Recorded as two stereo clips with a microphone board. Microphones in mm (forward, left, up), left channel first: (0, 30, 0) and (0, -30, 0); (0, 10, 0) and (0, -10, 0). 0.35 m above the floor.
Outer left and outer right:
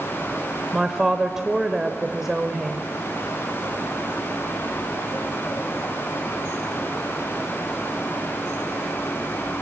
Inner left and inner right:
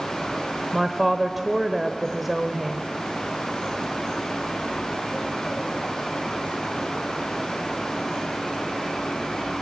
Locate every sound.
0.7 s a woman speaking: 10° right (ahead or behind), 1.0 m